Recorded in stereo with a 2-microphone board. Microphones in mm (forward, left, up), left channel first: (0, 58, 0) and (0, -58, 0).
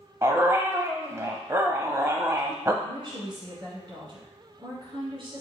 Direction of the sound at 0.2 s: 25° right (ahead or behind).